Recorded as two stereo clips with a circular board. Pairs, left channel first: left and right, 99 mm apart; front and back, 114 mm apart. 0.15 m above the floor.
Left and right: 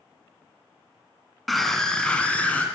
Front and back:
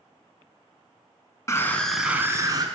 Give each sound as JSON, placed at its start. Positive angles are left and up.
{"t": 1.5, "sound": "a scream", "azimuth_deg": 0, "distance_m": 1.1}